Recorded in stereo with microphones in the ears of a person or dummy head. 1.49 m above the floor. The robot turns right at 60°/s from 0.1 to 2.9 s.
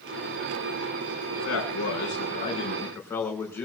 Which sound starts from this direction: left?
A man speaking, at 1.4 s.